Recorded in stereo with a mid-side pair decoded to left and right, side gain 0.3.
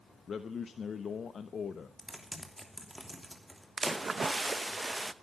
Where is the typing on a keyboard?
Straight ahead, 3 m.